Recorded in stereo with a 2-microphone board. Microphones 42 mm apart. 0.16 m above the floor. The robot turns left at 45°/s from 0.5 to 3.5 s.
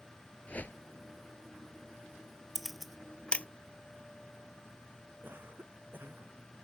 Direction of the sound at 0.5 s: 35° left (ahead or behind).